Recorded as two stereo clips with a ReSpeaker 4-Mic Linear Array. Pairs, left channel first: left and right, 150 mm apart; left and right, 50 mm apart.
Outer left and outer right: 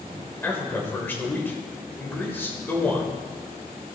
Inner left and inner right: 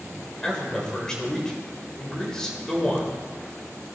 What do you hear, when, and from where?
0.4 s a man speaking: 15° left (ahead or behind), 1.9 m